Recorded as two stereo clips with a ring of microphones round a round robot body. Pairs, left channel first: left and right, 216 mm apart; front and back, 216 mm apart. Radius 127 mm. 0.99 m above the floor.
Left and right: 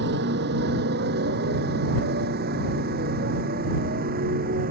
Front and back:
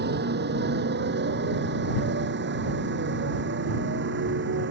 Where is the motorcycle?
140° right; by 4.7 s 145° right.